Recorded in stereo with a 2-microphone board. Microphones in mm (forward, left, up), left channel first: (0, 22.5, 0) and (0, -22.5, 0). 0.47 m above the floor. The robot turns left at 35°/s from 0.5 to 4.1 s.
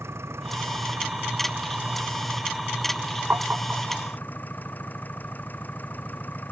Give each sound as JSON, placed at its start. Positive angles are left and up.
{"t": 0.0, "sound": "an engine running", "azimuth_deg": -100}
{"t": 3.3, "sound": "tapping", "side_deg": -50}